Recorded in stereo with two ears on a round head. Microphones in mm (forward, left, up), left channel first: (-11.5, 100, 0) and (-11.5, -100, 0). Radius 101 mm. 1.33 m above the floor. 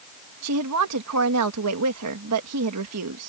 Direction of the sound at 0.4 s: 80° right.